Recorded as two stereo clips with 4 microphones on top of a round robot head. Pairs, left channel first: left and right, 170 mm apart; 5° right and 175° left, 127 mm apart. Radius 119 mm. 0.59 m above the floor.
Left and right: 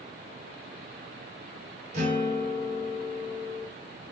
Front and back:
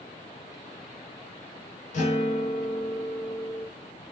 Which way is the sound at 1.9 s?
35° right.